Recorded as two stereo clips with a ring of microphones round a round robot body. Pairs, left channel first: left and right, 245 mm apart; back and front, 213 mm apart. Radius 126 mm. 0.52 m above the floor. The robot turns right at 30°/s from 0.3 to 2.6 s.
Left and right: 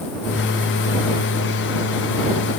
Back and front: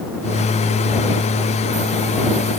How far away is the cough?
No cough in this recording.